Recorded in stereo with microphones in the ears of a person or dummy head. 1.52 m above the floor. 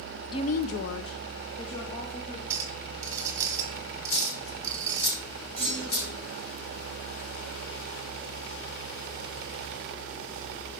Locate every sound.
0.3 s a woman speaking: 20° left (ahead or behind), 0.6 m; by 2.4 s 50° left (ahead or behind), 2 m
2.5 s a clink: 20° right (ahead or behind), 1.2 m
4.1 s a dropped coin: 70° left (ahead or behind), 3 m
5.6 s a clunk: 10° left (ahead or behind), 5.5 m